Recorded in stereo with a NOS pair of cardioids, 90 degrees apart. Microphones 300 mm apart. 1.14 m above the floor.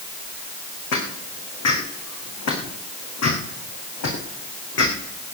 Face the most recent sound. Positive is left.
turn(degrees=60)